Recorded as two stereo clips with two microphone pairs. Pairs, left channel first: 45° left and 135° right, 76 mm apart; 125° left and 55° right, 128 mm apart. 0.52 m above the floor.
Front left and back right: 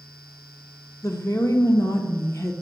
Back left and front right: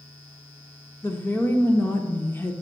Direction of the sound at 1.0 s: 60° left.